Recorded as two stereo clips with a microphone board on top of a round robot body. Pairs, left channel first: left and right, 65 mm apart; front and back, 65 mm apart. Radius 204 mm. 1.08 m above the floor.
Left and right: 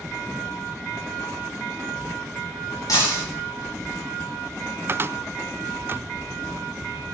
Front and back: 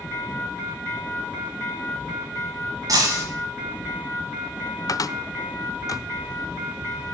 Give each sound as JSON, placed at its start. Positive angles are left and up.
{"t": 2.9, "sound": "breaking glass", "azimuth_deg": 135, "distance_m": 1.3}
{"t": 4.9, "sound": "a cupboard door", "azimuth_deg": -30, "distance_m": 0.6}